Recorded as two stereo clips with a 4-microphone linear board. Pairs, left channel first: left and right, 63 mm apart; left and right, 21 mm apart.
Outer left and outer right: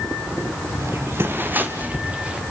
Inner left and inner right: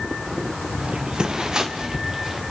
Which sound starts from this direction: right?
Footsteps, at 0.8 s.